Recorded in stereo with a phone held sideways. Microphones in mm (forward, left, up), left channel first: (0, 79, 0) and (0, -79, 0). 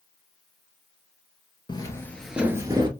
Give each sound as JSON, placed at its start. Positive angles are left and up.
{"t": 1.7, "sound": "footsteps", "side_deg": 30, "distance_m": 0.8}